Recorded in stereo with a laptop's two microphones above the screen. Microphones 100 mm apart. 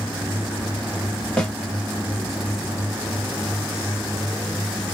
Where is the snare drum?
10° left (ahead or behind), 1.9 m.